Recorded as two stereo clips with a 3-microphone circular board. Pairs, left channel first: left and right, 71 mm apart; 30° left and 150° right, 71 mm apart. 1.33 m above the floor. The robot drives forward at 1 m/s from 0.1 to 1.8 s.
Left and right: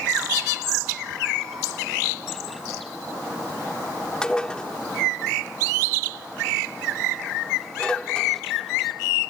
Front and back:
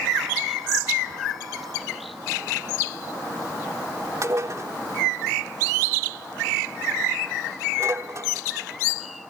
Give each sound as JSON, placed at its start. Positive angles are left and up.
{"t": 4.2, "sound": "dishes clattering", "azimuth_deg": 170}